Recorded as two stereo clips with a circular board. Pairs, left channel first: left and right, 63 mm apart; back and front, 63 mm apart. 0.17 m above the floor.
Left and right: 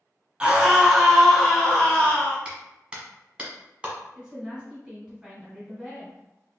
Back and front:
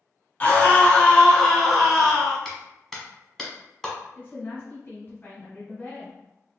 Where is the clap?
100° right, 1.2 m.